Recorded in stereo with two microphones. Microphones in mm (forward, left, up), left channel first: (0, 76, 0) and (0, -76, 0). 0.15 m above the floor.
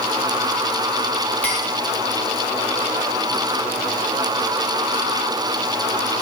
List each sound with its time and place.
1.4 s a clink: 10° left (ahead or behind), 9.5 m